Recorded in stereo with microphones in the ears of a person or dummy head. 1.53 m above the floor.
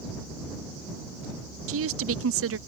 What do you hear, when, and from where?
1.7 s a woman speaking: 70° right (ahead or behind)